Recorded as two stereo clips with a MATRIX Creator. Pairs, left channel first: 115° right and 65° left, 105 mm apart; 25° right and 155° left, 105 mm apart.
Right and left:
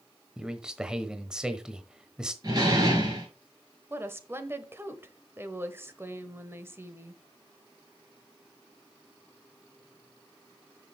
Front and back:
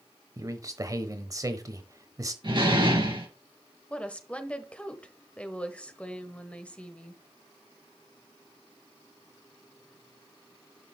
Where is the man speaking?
145° left, 1.0 m.